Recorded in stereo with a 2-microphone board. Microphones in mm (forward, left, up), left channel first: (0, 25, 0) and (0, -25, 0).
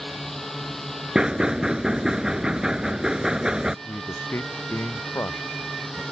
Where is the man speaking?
55° left (ahead or behind).